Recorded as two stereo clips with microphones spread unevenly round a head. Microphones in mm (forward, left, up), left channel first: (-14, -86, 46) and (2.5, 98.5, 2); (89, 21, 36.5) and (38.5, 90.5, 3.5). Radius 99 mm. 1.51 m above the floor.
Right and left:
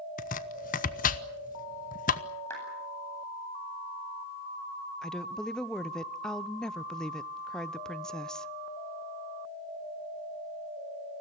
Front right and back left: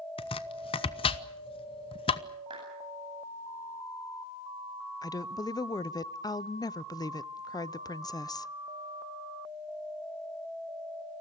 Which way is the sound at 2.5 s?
170° right.